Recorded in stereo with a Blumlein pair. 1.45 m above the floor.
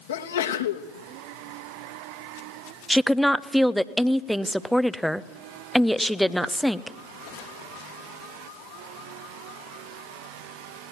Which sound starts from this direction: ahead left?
A sneeze, at 0.1 s.